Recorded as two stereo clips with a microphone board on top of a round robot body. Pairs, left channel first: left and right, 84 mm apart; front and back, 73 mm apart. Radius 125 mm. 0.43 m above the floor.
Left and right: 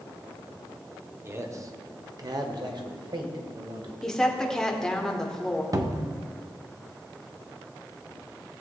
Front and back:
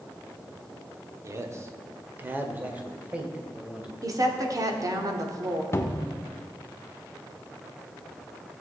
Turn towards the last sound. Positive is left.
turn(degrees=-50)